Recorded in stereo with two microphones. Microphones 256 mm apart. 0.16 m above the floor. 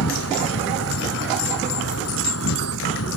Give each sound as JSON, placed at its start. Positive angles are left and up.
{"t": 0.0, "sound": "an insect", "side_deg": 70}